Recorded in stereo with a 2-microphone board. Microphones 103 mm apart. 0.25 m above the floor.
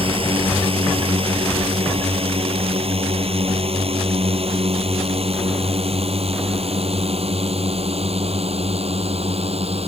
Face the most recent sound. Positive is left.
turn(degrees=-80)